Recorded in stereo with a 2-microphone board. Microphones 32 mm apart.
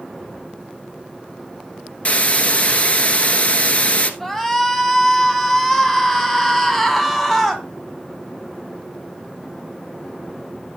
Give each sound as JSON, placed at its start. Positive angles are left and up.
{"t": 2.0, "sound": "a hiss", "side_deg": 40, "distance_m": 1.2}
{"t": 4.2, "sound": "a shout", "side_deg": 10, "distance_m": 2.5}